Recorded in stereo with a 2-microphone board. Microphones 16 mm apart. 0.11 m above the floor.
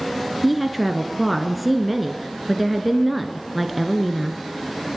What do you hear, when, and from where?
0.4 s a woman speaking: 5° right (ahead or behind), 1.5 m